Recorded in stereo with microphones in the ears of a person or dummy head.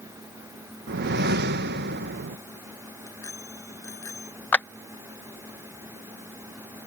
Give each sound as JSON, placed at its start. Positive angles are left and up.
{"t": 0.9, "sound": "a whoosh", "side_deg": -60}
{"t": 3.1, "sound": "a bicycle bell", "side_deg": 20}
{"t": 4.5, "sound": "a clap", "side_deg": 10}